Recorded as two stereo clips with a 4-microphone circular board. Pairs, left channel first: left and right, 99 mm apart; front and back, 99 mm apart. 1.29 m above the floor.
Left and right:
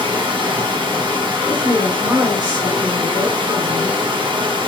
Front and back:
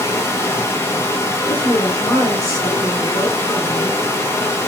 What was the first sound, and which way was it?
Running water, 65° right.